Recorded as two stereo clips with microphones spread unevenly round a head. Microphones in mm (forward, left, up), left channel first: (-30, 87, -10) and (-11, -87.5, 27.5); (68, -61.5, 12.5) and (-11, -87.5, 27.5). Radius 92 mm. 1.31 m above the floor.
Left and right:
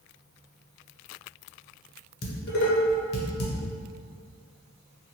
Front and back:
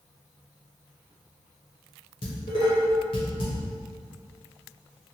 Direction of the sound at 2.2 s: 65° left.